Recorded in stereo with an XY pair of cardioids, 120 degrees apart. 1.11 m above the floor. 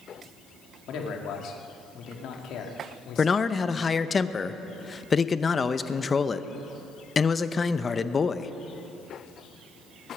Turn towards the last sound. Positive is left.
turn(degrees=30)